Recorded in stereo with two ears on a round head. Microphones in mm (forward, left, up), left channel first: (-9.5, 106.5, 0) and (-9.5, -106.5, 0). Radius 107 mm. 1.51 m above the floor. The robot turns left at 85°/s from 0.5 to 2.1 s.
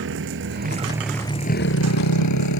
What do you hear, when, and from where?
0.0 s a motorcycle: 55° right (ahead or behind); by 2.6 s 85° left